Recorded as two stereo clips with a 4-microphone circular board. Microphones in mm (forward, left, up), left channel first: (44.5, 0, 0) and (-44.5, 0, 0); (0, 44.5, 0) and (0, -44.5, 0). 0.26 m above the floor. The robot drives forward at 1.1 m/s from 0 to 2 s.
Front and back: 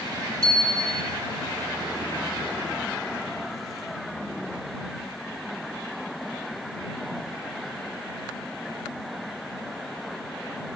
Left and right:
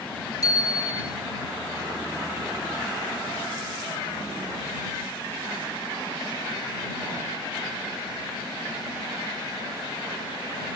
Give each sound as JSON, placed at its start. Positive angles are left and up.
{"t": 0.4, "sound": "a bicycle bell", "azimuth_deg": 140, "distance_m": 3.0}